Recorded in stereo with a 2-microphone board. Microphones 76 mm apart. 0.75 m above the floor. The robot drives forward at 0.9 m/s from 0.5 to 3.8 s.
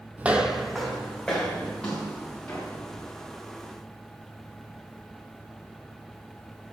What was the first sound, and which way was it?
Footsteps, 20° right (ahead or behind).